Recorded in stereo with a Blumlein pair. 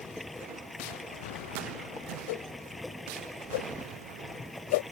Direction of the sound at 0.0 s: 5° left.